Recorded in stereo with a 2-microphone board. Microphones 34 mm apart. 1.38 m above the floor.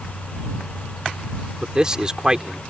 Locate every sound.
1.6 s a man speaking: 20° right (ahead or behind)